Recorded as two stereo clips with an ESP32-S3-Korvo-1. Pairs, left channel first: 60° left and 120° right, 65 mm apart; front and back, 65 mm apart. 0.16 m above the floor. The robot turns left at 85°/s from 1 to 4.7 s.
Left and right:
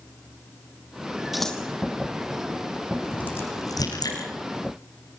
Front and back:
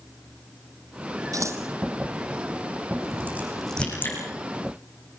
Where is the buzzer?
I don't hear a buzzer.